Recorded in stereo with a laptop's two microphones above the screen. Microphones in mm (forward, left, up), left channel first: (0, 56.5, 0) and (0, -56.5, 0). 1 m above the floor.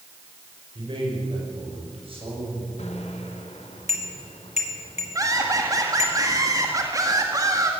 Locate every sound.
0.8 s a man speaking: 50° right (ahead or behind), 5 m; by 2.7 s 60° right (ahead or behind), 8 m
2.8 s a bicycle bell: 85° left, 2.5 m
5.2 s laughter: 30° right (ahead or behind), 1.7 m